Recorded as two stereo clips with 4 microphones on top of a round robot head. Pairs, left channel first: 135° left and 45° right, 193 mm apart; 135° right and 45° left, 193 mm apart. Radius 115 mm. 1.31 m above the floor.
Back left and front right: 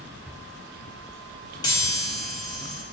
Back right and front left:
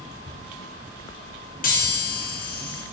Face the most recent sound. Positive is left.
turn(degrees=-165)